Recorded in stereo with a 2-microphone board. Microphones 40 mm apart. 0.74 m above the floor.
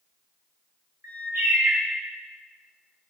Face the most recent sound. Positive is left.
turn(degrees=-80)